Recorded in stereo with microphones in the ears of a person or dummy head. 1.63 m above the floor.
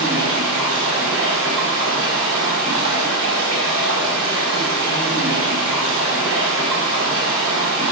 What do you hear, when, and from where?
0.0 s running water: 80° right, 5 m